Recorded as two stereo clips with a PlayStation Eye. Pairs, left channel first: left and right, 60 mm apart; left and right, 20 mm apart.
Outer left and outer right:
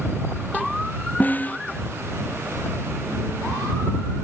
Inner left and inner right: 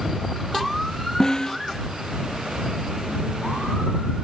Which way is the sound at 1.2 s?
30° left (ahead or behind).